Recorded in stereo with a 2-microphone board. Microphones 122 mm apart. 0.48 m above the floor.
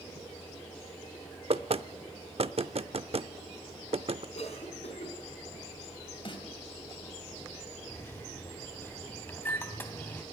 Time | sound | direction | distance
1.5 | knocking | 55° right (ahead or behind) | 0.6 m
4.3 | a cough | 60° left (ahead or behind) | 5 m
6.2 | a snare drum | 45° left (ahead or behind) | 3 m
7.9 | a microwave | 15° left (ahead or behind) | 2.5 m